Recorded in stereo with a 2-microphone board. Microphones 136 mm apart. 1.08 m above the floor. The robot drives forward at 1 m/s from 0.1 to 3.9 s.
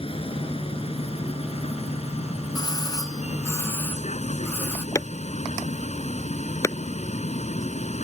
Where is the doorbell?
30° left (ahead or behind); by 4.8 s 15° left (ahead or behind).